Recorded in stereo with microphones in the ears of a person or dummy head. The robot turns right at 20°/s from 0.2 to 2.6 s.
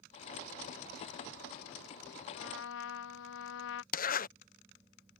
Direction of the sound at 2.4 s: 65° left (ahead or behind).